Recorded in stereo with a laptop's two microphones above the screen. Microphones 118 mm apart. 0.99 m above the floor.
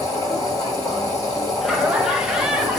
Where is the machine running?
35° left (ahead or behind), 1.6 m.